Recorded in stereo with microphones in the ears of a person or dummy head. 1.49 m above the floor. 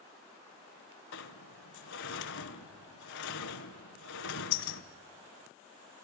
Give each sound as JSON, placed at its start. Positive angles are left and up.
{"t": 1.1, "sound": "a sliding door", "side_deg": 60, "distance_m": 1.1}